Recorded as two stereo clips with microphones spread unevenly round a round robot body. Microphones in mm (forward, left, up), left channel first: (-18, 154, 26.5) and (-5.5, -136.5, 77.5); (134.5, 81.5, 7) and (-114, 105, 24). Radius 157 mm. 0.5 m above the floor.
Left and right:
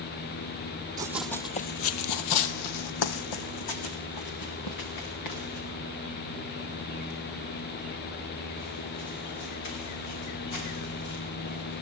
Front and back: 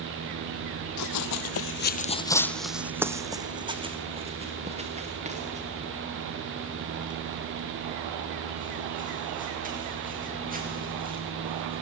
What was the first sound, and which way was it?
Running footsteps, 15° right.